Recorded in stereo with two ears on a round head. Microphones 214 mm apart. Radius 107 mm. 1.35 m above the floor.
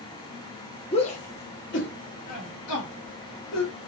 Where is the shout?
25° left (ahead or behind), 0.8 m; by 3.7 s 80° left, 1.8 m.